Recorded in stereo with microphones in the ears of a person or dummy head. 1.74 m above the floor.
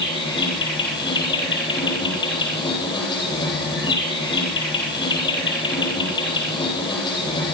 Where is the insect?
25° left (ahead or behind), 9 m.